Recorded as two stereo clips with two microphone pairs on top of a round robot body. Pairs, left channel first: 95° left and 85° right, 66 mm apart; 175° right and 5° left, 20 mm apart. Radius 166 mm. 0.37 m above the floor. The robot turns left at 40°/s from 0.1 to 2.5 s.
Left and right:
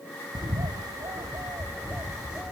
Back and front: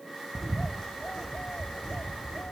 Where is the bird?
80° right; by 2.5 s 170° right.